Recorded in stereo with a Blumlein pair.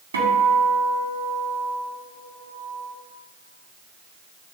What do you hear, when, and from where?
0.1 s a guitar: 70° right, 1.9 m